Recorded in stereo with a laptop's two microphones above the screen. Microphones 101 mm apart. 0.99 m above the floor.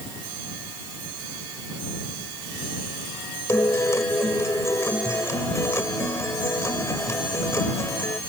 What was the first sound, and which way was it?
A guitar, 30° left (ahead or behind).